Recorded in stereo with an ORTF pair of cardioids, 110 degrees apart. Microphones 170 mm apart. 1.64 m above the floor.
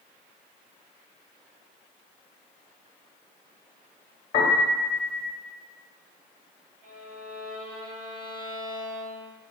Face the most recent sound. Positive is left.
turn(degrees=-65)